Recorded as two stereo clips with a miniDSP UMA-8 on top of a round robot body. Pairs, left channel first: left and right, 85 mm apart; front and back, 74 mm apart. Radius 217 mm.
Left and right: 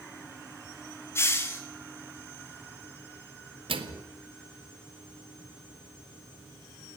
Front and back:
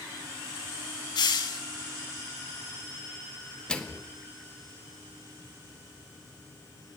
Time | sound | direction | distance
1.1 | a hiss | 30° left | 0.6 m
3.7 | a microwave | 80° right | 1.8 m